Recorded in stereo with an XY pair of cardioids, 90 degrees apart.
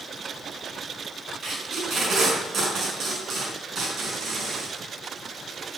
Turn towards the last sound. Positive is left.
turn(degrees=-60)